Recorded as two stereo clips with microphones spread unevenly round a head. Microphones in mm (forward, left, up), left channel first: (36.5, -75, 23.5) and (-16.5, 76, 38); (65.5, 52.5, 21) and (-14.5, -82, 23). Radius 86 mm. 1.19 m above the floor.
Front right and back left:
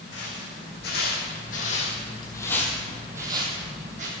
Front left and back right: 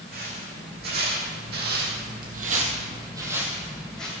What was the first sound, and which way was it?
Footsteps, 95° right.